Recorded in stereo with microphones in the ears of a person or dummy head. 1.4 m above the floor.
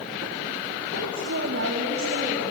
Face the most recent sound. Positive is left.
turn(degrees=-60)  # may be behind; listen again after turning